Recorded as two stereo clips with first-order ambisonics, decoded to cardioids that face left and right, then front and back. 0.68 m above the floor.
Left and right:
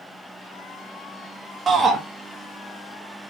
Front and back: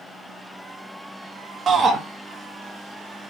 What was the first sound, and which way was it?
A shout, 140° right.